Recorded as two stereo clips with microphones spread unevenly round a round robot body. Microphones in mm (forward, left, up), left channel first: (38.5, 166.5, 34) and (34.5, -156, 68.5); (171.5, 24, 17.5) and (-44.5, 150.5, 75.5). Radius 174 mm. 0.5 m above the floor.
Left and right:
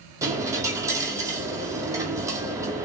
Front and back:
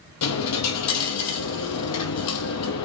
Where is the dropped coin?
15° right, 0.8 m.